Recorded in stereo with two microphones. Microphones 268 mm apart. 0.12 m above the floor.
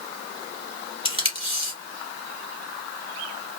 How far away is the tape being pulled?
About 1.8 m.